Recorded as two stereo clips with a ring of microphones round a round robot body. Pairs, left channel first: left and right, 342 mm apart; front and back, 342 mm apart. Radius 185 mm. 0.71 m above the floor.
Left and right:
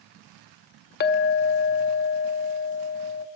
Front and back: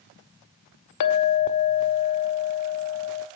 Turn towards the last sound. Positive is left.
turn(degrees=30)